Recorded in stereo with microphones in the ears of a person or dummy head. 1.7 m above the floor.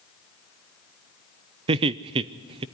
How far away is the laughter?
About 0.5 m.